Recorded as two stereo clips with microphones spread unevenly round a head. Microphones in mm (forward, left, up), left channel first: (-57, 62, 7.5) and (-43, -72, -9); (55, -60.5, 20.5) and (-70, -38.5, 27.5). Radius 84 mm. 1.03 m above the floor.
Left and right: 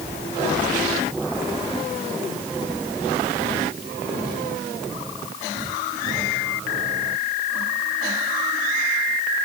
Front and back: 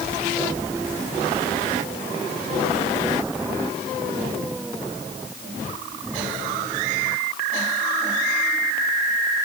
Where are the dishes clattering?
I don't hear dishes clattering.